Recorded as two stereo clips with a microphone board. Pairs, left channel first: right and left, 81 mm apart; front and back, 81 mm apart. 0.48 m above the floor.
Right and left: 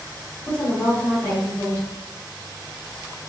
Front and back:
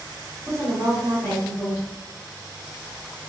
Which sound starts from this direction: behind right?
A woman speaking, at 0.5 s.